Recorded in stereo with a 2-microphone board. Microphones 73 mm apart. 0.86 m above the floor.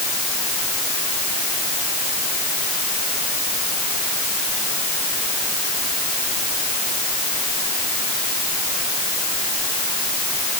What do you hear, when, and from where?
Only background noise.